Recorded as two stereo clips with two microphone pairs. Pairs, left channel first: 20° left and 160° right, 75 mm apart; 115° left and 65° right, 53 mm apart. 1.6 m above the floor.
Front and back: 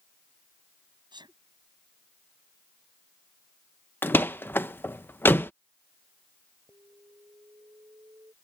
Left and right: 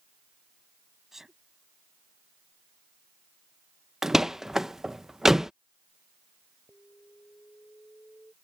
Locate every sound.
1.1 s a sneeze: 145° right
4.0 s a door slam: 15° left
6.7 s an alarm: 170° left